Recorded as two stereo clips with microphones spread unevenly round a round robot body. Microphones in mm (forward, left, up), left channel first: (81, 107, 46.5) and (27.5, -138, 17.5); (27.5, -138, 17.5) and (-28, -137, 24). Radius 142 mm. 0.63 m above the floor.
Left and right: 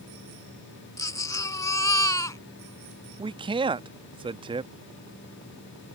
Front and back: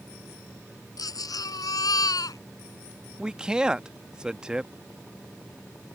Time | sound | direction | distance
1.0 | a baby crying | straight ahead | ?
3.2 | a man speaking | 105° right | ?